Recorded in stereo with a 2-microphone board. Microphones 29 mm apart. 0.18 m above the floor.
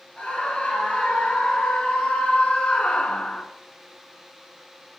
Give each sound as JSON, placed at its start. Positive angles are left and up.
{"t": 0.2, "sound": "a scream", "side_deg": 30, "distance_m": 3.0}